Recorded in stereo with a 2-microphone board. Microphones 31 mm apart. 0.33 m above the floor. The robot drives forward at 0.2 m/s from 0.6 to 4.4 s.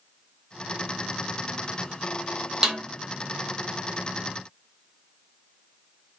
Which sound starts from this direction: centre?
A snare drum, at 2.6 s.